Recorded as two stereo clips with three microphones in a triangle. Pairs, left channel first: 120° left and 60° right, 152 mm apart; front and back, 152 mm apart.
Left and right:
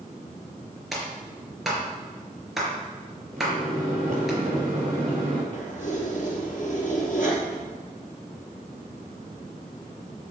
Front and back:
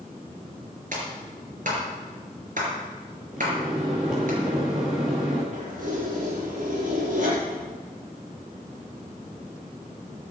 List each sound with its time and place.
0.9 s a clap: 150° right, 4 m
3.3 s a microwave: 95° right, 5.5 m
5.5 s keys jangling: 150° left, 4 m